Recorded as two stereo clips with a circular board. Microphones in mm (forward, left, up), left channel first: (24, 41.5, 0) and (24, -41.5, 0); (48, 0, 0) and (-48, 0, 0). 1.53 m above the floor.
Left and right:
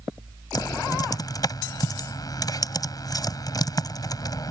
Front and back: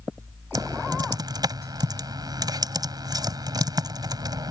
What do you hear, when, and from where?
0.6 s typing on a keyboard: 130° left